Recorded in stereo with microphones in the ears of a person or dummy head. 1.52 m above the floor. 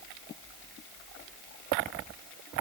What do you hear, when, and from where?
Only background noise.